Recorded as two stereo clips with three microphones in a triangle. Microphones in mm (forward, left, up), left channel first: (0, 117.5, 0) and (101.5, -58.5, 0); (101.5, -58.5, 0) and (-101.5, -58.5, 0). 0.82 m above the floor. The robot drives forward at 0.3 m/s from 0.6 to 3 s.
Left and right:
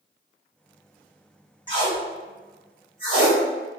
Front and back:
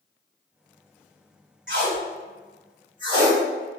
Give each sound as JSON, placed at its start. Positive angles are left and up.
{"t": 1.7, "sound": "tape being pulled", "azimuth_deg": 180, "distance_m": 1.2}